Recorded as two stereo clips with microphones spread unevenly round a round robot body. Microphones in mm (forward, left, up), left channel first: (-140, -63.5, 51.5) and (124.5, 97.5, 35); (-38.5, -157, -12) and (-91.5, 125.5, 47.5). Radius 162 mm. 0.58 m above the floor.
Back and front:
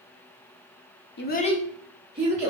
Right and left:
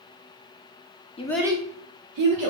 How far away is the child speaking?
About 0.6 m.